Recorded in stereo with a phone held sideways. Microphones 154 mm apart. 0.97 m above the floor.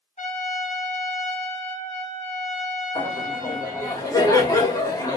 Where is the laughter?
20° left (ahead or behind), 1.4 m.